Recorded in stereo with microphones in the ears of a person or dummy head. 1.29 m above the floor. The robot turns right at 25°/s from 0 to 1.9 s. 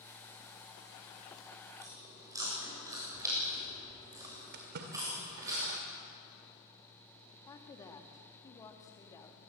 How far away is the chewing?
About 7.5 m.